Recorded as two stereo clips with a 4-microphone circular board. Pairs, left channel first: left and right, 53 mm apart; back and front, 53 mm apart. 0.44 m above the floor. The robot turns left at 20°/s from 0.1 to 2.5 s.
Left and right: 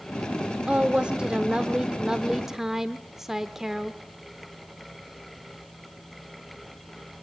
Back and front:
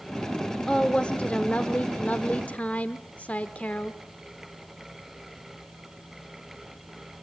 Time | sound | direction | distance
0.7 | a woman speaking | 125° right | 0.8 m